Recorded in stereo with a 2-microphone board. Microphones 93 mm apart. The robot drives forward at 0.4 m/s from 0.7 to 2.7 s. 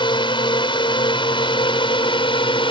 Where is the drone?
65° left (ahead or behind); by 2.7 s 70° left (ahead or behind).